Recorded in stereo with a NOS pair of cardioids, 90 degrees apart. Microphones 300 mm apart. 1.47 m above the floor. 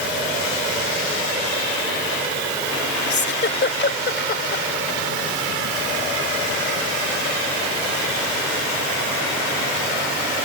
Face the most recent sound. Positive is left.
turn(degrees=40)